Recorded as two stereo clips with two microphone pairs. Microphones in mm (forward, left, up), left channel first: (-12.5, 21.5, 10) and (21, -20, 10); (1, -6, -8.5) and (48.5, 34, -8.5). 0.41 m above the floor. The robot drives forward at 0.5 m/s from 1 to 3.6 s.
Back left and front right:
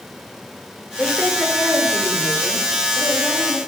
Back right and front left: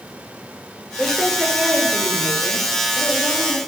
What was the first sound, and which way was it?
A woman speaking, 105° left.